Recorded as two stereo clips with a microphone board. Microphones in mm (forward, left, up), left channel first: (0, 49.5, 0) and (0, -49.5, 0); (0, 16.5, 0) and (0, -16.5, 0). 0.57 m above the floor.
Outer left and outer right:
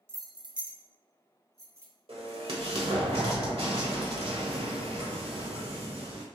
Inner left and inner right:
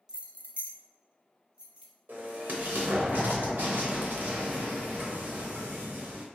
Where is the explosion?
80° right, 1.1 m.